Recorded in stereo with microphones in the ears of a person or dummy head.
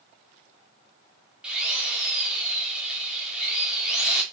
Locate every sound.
1.4 s a drill: centre (ahead or behind), 2.5 m